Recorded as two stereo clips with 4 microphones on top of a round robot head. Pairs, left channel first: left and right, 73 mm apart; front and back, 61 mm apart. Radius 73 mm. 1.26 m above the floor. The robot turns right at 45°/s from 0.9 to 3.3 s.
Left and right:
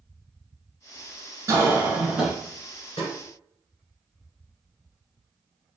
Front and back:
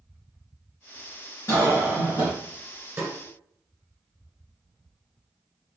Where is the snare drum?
135° left, 1.4 m; by 3.1 s 145° left, 1.4 m.